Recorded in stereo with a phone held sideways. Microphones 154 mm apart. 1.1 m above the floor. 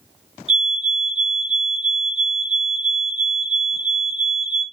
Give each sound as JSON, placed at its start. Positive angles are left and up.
{"t": 0.5, "sound": "a fire alarm", "side_deg": 0, "distance_m": 3.0}